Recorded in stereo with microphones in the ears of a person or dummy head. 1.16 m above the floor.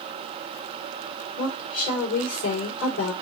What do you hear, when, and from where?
1.4 s a woman speaking: 80° left, 2.5 m